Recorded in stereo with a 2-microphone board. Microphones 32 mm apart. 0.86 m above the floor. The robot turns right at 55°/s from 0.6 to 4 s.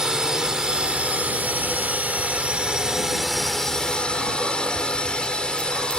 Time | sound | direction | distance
0.0 | a drone | 155° right | ?